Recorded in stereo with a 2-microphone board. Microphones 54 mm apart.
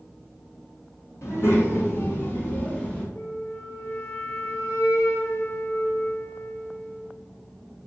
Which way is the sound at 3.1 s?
50° left (ahead or behind).